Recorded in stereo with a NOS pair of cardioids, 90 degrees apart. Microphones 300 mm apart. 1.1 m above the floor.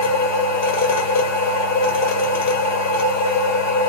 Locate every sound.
0.0 s a machine running: 65° left, 1.3 m